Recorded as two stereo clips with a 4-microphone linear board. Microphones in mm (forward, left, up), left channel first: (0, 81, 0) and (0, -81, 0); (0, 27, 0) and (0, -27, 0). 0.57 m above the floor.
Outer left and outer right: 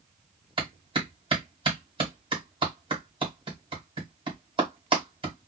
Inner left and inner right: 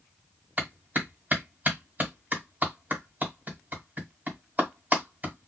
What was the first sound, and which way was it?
A clap, 30° right (ahead or behind).